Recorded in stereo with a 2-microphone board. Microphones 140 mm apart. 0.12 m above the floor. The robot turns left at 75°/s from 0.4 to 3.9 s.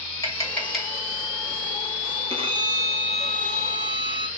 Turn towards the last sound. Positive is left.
turn(degrees=130)